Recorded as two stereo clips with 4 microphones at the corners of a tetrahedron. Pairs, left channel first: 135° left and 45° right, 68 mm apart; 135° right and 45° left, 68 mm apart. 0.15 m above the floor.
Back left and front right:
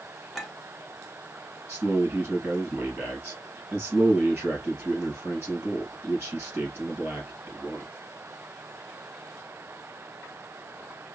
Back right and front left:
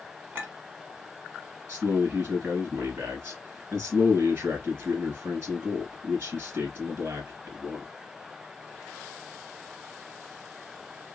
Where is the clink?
45° left, 1.0 m.